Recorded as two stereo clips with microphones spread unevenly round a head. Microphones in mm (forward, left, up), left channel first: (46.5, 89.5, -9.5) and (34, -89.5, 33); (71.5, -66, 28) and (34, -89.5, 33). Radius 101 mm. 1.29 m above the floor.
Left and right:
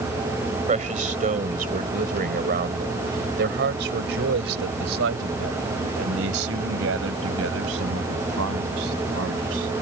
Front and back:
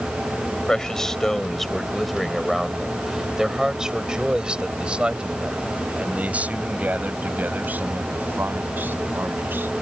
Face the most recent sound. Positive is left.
turn(degrees=-115)